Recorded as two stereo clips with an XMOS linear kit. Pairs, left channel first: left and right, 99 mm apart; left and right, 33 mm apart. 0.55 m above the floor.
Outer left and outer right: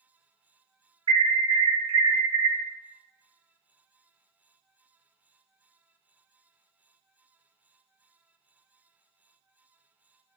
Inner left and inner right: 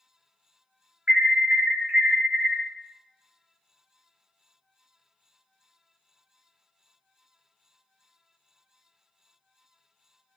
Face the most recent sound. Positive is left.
turn(degrees=-55)  # may be behind; listen again after turning